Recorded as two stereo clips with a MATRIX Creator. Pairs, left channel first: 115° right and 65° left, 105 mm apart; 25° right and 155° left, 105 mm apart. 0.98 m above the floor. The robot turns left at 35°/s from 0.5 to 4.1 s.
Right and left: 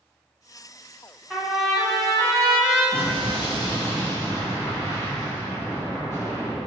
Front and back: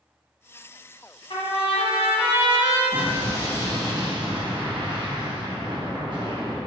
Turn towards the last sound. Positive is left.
turn(degrees=-170)